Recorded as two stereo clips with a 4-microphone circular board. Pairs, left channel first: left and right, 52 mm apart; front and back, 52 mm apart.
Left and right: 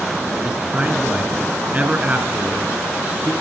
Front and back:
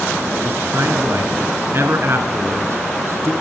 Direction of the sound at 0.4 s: 150° right.